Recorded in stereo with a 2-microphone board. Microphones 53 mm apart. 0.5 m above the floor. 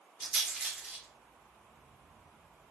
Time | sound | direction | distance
0.2 | a rattle | 5° right (ahead or behind) | 3.5 m